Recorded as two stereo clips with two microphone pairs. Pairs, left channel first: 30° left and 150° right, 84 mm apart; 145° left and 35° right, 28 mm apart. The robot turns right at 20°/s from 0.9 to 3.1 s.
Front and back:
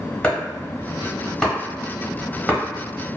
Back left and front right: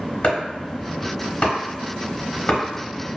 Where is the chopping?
110° left, 0.9 m; by 3.2 s 155° left, 0.9 m.